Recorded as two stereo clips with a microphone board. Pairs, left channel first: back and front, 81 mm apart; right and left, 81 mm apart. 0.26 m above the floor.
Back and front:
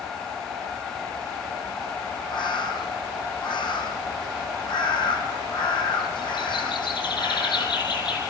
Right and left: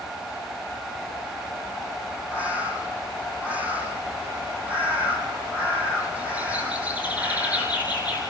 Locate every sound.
2.3 s a bird: 160° left, 4.5 m